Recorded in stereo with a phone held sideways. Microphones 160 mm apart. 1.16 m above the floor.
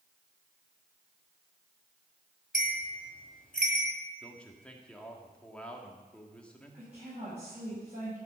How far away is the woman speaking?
About 7.5 m.